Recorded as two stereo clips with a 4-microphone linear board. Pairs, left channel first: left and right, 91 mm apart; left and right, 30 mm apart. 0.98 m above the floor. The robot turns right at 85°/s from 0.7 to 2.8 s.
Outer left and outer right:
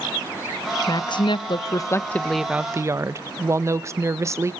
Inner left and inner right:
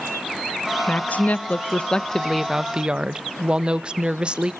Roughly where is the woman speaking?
Ahead left.